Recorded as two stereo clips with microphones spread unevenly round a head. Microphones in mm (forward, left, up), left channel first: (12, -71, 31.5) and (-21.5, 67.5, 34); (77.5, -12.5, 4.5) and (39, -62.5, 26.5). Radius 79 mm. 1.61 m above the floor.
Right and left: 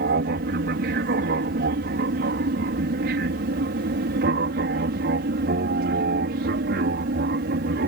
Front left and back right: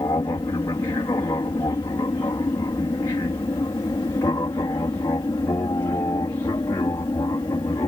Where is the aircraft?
105° left; by 7.9 s 110° left.